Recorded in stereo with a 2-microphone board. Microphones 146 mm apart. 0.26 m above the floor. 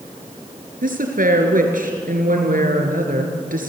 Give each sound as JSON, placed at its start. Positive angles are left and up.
{"t": 0.8, "sound": "a woman speaking", "side_deg": -75, "distance_m": 4.5}